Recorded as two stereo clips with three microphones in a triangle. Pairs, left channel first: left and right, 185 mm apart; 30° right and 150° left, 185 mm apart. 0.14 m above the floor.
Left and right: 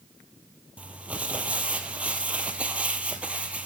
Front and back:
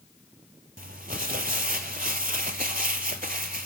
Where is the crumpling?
170° right, 0.6 m.